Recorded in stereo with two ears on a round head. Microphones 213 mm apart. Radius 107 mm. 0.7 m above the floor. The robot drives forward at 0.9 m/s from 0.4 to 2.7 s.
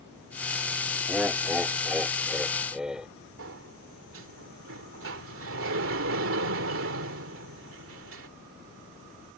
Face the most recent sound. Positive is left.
turn(degrees=-60)  # may be behind; listen again after turning